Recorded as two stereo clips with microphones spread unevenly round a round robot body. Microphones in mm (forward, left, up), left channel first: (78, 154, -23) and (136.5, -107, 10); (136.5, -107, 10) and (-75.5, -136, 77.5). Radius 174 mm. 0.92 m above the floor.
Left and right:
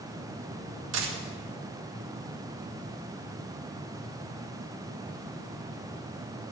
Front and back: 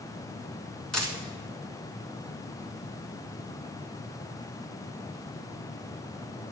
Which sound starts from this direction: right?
A dropped coin, at 0.9 s.